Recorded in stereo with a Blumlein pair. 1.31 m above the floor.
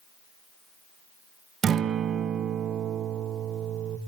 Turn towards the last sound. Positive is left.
turn(degrees=-25)